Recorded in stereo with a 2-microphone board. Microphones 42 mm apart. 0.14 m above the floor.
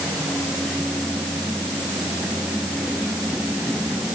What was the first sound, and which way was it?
Only background noise.